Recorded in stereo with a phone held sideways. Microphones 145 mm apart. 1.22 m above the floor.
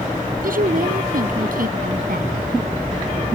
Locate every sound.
0.4 s a woman speaking: 70° right (ahead or behind)